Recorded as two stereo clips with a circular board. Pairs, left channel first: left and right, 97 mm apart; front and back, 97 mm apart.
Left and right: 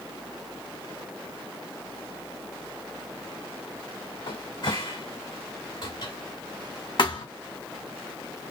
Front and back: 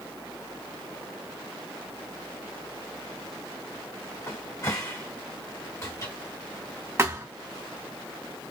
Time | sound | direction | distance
4.3 | a cupboard door | 55° left | 1.5 m
7.0 | a thud | 120° left | 1.8 m